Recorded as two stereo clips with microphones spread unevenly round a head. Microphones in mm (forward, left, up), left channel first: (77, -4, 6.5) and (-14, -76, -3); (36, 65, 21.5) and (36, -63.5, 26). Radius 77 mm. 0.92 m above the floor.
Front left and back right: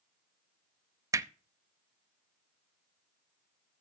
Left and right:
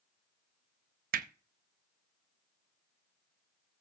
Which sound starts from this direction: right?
Hammering, at 1.1 s.